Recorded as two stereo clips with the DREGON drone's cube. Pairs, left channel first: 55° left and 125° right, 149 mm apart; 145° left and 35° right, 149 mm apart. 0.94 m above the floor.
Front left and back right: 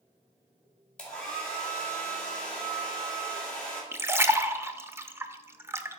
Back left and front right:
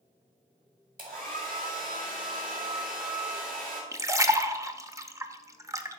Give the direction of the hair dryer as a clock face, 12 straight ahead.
1 o'clock.